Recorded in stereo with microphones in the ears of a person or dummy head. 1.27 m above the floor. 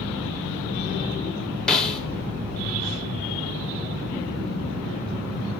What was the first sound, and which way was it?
A snare drum, 5° left (ahead or behind).